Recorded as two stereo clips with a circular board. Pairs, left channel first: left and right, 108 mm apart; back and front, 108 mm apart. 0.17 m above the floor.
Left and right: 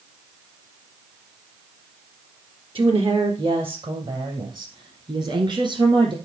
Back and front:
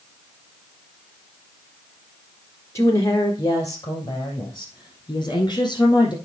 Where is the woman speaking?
120° right, 3 m; by 6.1 s 130° right, 6 m.